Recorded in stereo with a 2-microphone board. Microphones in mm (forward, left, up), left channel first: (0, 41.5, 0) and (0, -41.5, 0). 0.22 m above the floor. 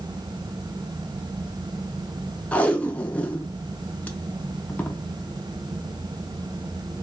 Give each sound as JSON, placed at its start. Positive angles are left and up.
{"t": 2.5, "sound": "tape being pulled", "side_deg": 15, "distance_m": 0.5}